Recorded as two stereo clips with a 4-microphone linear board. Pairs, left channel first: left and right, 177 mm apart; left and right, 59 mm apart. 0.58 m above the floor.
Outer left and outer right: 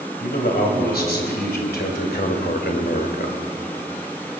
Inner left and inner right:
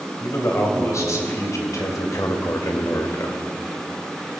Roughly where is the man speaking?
Left.